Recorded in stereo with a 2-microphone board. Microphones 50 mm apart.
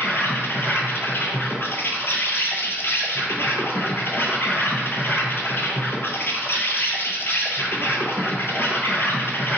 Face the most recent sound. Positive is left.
turn(degrees=55)  # may be behind; listen again after turning